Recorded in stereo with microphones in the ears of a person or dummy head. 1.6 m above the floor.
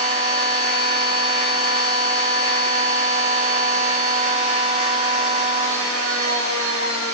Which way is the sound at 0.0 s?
30° right (ahead or behind).